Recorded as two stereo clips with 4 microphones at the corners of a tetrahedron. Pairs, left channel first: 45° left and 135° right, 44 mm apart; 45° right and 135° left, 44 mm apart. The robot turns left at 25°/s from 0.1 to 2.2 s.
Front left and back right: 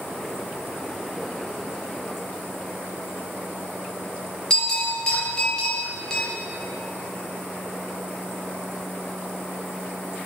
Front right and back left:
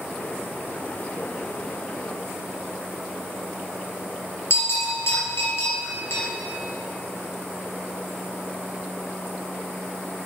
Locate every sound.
4.5 s a bell: 30° right, 3 m